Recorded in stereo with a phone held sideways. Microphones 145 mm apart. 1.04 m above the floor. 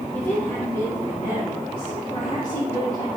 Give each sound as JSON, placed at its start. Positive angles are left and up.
{"t": 0.1, "sound": "a woman speaking", "side_deg": 15, "distance_m": 2.5}